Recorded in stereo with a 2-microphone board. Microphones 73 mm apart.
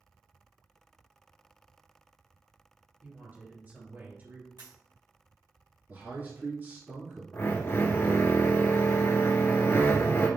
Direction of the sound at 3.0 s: 30° right (ahead or behind).